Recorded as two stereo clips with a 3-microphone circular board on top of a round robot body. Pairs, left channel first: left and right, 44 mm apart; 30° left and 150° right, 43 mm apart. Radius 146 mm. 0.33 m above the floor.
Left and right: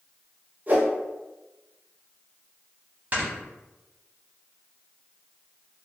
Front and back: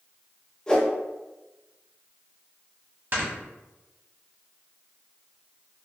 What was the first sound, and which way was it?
A whoosh, 45° right.